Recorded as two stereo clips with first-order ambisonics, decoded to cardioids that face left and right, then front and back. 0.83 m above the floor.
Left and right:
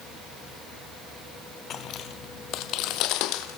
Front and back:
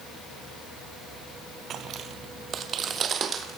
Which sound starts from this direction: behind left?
Footsteps, at 1.7 s.